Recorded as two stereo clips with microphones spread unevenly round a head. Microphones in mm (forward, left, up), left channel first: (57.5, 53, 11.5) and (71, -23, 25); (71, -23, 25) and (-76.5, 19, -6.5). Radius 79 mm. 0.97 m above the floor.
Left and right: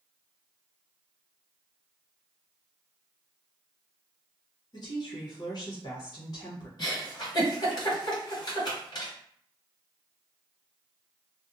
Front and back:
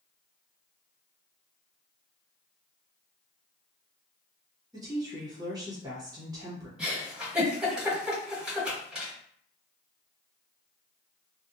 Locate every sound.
4.7 s a woman speaking: 105° left, 1.0 m
6.8 s a giggle: 70° left, 1.3 m